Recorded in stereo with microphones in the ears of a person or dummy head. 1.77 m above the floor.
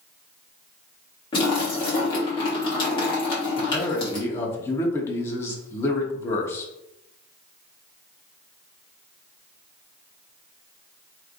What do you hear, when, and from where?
1.3 s a splash: 35° left (ahead or behind), 1.2 m
3.6 s a man speaking: 20° left (ahead or behind), 0.8 m